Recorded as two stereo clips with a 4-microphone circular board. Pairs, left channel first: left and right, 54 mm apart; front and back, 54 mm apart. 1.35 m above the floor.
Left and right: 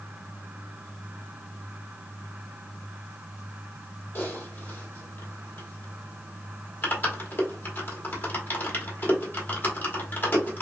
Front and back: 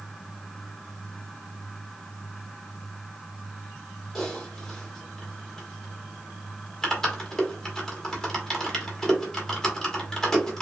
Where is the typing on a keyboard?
75° left, 1.0 m.